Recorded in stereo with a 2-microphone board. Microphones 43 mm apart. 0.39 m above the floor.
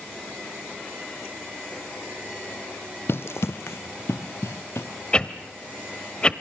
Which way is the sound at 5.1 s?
25° left (ahead or behind).